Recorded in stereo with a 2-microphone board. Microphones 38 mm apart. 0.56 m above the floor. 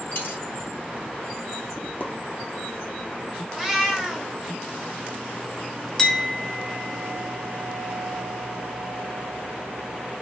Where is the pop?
55° left (ahead or behind), 0.7 m.